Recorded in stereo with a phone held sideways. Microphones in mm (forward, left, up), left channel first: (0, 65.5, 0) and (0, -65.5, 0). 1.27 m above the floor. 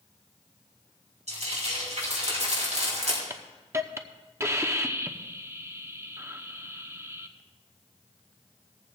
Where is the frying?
65° right (ahead or behind), 4.5 m.